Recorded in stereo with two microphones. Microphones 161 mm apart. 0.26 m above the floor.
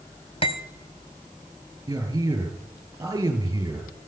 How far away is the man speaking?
About 5.5 m.